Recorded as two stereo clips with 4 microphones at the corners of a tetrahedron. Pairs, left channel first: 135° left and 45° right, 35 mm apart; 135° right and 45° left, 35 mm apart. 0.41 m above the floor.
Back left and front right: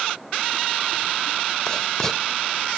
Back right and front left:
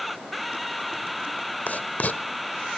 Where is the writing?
155° right, 0.9 m.